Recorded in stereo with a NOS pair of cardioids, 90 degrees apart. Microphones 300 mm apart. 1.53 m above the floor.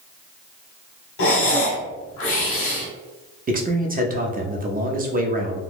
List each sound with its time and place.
1.2 s breathing: 50° left, 1.0 m
3.5 s a man speaking: 30° right, 0.8 m